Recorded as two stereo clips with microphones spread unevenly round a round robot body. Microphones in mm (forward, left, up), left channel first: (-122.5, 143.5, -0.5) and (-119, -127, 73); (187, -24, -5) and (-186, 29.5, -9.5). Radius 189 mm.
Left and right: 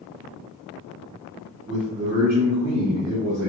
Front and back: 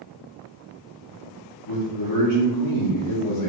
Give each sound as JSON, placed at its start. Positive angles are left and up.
{"t": 1.7, "sound": "a man speaking", "azimuth_deg": -10, "distance_m": 0.9}